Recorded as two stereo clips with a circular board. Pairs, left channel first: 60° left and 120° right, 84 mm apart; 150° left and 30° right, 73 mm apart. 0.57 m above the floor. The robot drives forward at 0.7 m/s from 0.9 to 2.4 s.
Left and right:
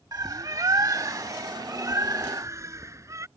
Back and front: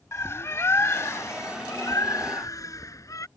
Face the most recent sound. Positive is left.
turn(degrees=-175)